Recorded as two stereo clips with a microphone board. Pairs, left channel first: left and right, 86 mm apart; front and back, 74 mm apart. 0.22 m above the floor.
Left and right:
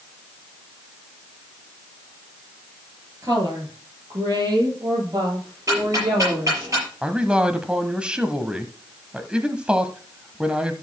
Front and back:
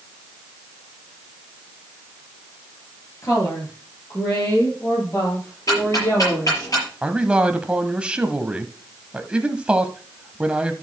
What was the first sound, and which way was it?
A woman speaking, 40° right.